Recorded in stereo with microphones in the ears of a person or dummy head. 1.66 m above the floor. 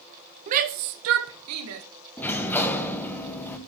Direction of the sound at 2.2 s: 10° left (ahead or behind).